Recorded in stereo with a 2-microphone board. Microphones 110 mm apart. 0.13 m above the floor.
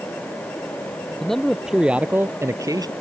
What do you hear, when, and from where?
1.2 s a man speaking: 5° left (ahead or behind); by 2.9 s 40° right (ahead or behind)